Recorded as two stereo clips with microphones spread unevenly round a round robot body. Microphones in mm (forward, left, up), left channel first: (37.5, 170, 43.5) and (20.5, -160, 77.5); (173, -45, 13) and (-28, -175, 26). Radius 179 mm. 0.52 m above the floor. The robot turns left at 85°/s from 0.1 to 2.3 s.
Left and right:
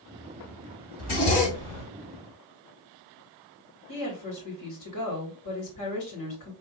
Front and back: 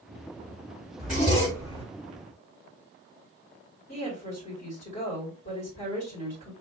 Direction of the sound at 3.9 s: 90° left.